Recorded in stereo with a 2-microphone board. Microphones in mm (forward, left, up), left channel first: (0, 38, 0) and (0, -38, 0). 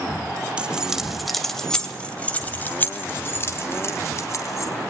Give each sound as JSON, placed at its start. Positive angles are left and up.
{"t": 0.6, "sound": "keys jangling", "side_deg": -15, "distance_m": 1.5}